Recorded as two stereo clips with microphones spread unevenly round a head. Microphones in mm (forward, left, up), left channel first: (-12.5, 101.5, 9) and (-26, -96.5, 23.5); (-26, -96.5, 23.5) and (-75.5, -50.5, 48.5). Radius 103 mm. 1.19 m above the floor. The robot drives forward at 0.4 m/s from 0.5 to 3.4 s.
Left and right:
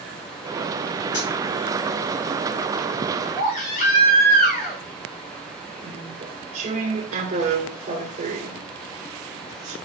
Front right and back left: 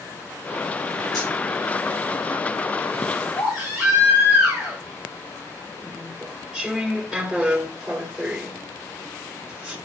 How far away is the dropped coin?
About 4.5 m.